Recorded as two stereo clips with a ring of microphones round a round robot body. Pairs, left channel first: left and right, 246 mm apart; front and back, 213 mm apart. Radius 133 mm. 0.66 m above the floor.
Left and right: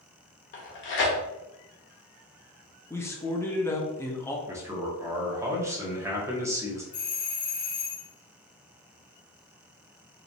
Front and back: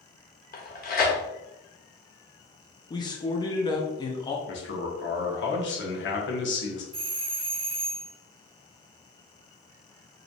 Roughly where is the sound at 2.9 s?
Ahead left.